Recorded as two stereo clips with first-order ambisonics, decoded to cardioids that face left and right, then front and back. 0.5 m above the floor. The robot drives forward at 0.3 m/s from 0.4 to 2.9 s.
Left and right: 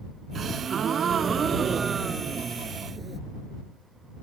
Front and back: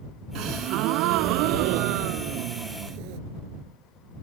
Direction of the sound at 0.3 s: 150° right.